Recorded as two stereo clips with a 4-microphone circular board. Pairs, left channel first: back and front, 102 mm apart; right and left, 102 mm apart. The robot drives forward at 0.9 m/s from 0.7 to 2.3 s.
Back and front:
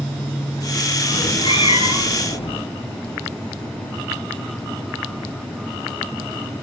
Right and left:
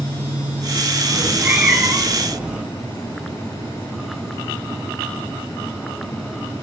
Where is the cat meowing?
155° left, 1.0 m; by 2.6 s 170° left, 2.0 m.